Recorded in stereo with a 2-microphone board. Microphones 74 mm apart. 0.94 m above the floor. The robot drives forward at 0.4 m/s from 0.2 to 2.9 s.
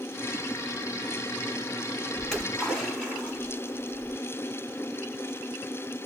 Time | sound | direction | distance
2.2 | a splash | 10° left (ahead or behind) | 5.5 m